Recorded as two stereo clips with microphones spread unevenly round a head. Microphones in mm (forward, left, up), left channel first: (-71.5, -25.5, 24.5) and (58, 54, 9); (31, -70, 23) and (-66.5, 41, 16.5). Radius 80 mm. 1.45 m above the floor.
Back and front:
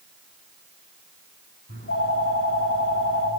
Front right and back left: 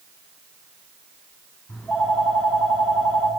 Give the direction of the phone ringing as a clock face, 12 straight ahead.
5 o'clock.